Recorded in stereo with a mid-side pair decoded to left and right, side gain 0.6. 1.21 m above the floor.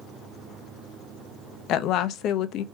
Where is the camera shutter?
I don't hear a camera shutter.